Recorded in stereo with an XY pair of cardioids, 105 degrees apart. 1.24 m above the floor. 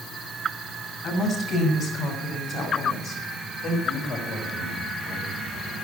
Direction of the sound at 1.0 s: 55° left.